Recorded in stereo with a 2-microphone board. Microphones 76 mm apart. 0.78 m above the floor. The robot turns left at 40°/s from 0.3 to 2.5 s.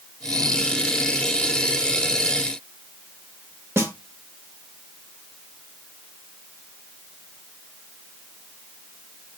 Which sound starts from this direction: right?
A snare drum, at 3.8 s.